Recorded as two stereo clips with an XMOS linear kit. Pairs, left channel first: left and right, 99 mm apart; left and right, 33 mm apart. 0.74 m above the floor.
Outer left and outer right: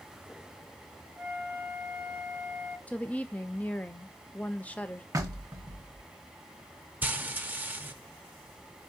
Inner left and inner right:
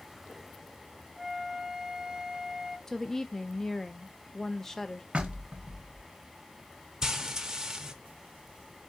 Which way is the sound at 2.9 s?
15° left (ahead or behind).